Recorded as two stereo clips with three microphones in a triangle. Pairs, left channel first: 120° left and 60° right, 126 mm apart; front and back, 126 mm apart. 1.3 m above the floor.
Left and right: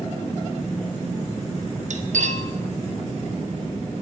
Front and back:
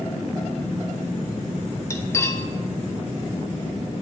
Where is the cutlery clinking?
70° right, 1.0 m.